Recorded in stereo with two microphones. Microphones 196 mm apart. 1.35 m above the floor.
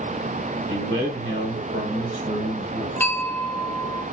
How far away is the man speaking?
About 2.0 m.